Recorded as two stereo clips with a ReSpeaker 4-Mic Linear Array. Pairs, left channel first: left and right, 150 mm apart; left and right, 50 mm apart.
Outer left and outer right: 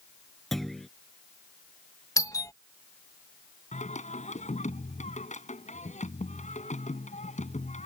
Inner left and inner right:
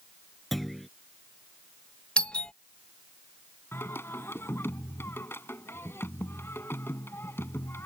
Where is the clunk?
Centre (ahead or behind).